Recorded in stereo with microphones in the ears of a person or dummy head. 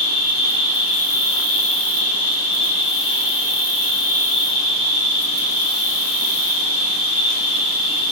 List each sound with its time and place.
0.0 s an insect: 75° left (ahead or behind), 1.2 m